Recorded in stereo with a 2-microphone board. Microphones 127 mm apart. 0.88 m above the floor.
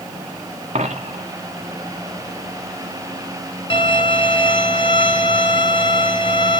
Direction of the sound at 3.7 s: 40° left (ahead or behind).